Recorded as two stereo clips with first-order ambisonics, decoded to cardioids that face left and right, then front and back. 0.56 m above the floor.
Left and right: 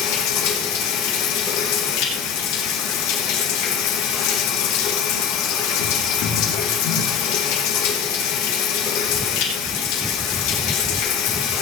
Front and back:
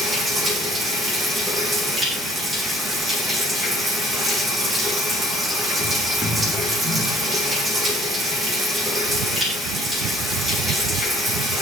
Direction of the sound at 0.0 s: 110° left.